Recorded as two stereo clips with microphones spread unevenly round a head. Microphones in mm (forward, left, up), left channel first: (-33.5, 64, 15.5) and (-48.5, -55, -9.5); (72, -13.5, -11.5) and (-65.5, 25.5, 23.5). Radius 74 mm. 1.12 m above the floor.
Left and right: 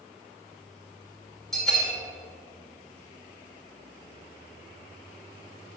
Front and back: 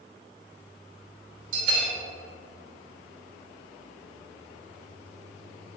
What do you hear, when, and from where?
1.5 s a bell: 175° left, 2.5 m